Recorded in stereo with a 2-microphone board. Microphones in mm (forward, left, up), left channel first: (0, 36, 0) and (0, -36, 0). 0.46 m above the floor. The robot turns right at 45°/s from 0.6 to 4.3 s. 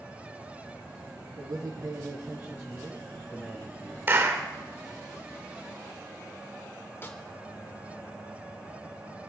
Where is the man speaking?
80° right, 3 m; by 4.0 s 35° left, 3 m.